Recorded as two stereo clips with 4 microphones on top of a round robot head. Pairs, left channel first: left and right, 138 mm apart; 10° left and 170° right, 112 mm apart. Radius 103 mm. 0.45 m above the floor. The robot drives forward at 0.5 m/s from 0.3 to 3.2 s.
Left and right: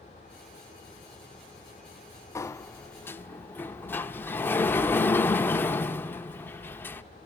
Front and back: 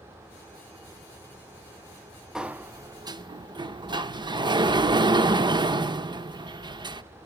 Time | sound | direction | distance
2.4 | a sliding door | 115° left | 0.6 m